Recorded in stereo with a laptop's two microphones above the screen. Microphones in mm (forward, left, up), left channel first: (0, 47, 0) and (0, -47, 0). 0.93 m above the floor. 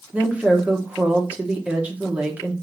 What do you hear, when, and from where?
0.1 s a woman speaking: 15° right (ahead or behind), 0.8 m